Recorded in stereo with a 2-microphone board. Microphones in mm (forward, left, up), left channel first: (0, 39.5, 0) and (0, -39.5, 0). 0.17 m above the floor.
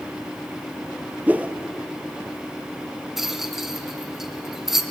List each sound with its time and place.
1.3 s a whoosh: 20° right (ahead or behind), 1.2 m
3.2 s a rattle: 5° right (ahead or behind), 1.3 m